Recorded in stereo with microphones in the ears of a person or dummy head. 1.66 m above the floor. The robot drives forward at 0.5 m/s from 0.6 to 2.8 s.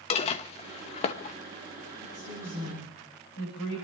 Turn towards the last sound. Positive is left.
turn(degrees=55)  # may be behind; listen again after turning